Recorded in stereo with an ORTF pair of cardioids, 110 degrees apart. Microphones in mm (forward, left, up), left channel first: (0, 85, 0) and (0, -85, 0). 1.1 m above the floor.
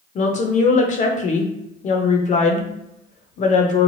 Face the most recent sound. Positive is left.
turn(degrees=45)